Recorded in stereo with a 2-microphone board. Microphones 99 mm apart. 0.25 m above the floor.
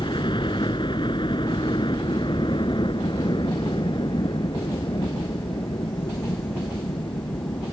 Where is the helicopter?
55° left (ahead or behind).